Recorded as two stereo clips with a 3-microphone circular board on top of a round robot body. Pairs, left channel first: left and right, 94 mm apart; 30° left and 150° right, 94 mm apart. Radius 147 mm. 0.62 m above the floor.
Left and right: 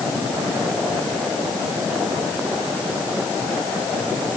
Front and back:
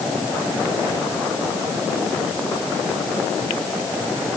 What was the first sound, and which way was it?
Only background noise.